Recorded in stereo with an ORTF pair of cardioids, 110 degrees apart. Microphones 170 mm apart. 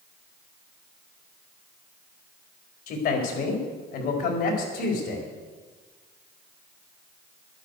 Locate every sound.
2.9 s a man speaking: 65° left, 4.5 m; by 5.3 s 70° left, 5.5 m